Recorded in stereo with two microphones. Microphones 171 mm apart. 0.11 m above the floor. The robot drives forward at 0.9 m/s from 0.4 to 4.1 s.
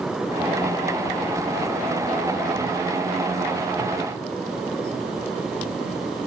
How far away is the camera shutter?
No camera shutter in this recording.